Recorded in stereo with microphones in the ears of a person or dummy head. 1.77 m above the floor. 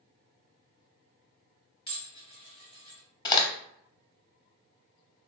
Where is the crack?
25° left (ahead or behind), 0.7 m.